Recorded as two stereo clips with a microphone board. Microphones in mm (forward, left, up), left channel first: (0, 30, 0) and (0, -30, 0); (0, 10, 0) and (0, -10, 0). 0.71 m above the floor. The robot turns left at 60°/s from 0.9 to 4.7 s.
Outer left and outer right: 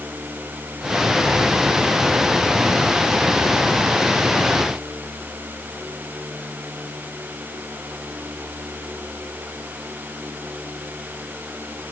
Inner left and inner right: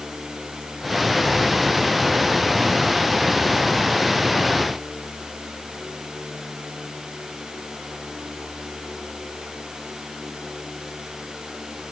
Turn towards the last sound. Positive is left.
No sound to turn to.